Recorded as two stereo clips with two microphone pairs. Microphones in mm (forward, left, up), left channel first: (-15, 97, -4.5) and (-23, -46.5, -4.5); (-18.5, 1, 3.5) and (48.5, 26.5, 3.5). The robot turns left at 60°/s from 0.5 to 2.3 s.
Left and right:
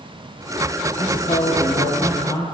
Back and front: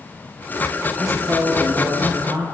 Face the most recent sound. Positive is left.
turn(degrees=35)